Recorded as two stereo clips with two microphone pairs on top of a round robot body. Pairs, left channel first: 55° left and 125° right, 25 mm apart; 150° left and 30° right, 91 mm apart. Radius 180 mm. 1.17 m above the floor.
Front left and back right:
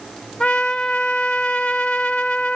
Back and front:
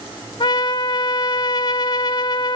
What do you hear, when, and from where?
0.4 s a trumpet: 110° left, 0.7 m